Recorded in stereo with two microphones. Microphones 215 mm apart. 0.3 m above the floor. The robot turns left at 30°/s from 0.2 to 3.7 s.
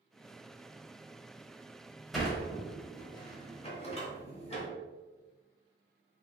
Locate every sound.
2.1 s a sliding door: centre (ahead or behind), 0.9 m; by 4.7 s 30° left (ahead or behind), 0.9 m